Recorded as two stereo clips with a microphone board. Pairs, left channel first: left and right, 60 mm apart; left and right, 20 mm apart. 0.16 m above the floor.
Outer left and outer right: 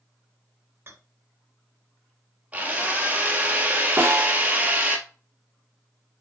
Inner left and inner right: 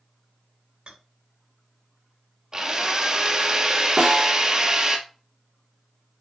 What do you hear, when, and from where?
0.9 s a rattle: 45° right (ahead or behind), 2.0 m
2.5 s a drill: 25° right (ahead or behind), 1.6 m
4.0 s a snare drum: 30° right (ahead or behind), 3 m